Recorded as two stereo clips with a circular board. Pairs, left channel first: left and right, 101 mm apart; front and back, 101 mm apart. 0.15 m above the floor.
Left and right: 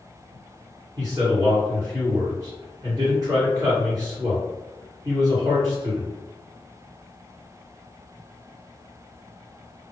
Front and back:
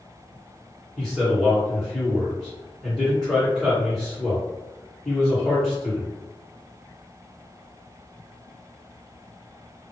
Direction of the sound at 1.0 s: 85° right.